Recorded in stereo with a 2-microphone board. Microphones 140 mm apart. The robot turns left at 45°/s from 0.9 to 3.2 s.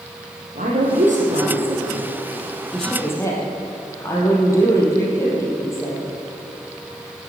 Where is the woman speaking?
65° right (ahead or behind), 4 m; by 6.0 s 20° left (ahead or behind), 4 m.